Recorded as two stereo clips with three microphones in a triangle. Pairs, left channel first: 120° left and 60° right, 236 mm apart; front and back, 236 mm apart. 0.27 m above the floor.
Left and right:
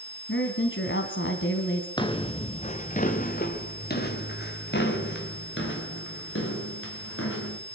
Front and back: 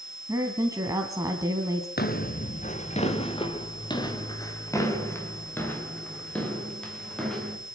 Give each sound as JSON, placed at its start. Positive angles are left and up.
{"t": 0.3, "sound": "a woman speaking", "azimuth_deg": 105, "distance_m": 2.5}
{"t": 2.0, "sound": "footsteps", "azimuth_deg": 50, "distance_m": 2.5}